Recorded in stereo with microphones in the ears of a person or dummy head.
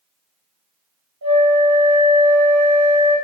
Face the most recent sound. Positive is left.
turn(degrees=-75)  # may be behind; listen again after turning